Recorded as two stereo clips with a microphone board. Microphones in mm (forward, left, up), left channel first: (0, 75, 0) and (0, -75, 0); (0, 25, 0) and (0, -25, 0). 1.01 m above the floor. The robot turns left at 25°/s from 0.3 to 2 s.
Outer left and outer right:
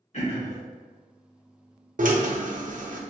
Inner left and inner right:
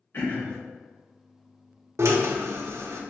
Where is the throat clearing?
50° left (ahead or behind), 1.3 m; by 0.6 s 45° left (ahead or behind), 1.3 m.